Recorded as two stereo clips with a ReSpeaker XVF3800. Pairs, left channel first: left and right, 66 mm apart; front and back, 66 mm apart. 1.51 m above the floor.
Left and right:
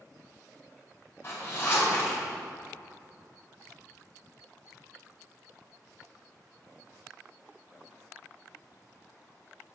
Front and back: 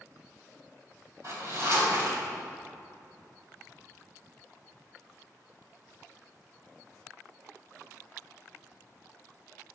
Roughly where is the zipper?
Behind left.